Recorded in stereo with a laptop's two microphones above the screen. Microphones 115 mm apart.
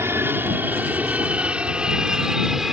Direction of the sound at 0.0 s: 20° right (ahead or behind).